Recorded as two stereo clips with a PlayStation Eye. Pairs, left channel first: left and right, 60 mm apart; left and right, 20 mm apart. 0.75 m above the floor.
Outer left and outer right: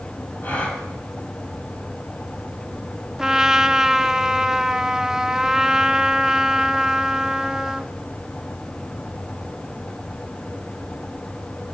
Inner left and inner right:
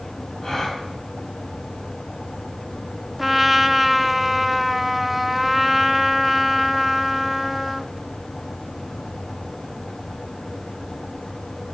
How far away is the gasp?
About 5.5 m.